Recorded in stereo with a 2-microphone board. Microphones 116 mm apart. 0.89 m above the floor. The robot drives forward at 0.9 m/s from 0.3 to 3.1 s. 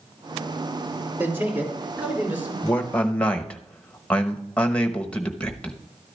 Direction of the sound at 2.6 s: 15° left (ahead or behind).